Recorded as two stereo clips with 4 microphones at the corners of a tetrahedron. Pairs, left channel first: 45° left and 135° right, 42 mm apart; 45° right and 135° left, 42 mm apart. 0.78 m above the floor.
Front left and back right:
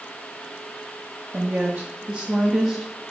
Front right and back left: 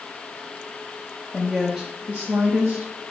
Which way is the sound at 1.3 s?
125° right.